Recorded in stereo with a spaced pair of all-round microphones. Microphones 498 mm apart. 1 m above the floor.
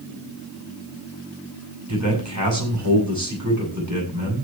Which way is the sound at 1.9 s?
35° right (ahead or behind).